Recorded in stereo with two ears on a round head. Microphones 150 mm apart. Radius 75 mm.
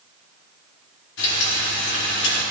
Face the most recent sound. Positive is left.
turn(degrees=70)  # may be behind; listen again after turning